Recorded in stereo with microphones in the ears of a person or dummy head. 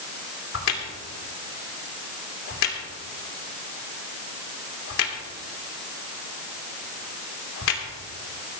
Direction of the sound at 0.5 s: 70° left (ahead or behind).